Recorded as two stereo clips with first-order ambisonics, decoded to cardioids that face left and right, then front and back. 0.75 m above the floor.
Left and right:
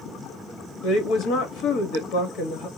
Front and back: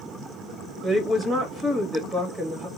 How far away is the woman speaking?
About 1.3 m.